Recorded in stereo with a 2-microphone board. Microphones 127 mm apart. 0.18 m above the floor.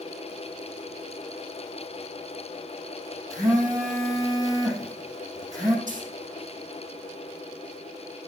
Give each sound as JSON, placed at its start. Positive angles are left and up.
{"t": 3.3, "sound": "a phone buzzing", "side_deg": -30, "distance_m": 6.0}
{"t": 5.9, "sound": "a dropped coin", "side_deg": -80, "distance_m": 4.5}